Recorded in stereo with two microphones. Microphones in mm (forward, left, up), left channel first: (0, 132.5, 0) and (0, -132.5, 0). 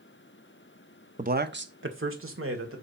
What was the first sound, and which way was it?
A man speaking, 30° right (ahead or behind).